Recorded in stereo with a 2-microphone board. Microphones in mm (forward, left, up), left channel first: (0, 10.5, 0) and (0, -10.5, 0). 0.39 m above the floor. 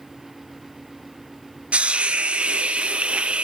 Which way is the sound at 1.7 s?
60° right (ahead or behind).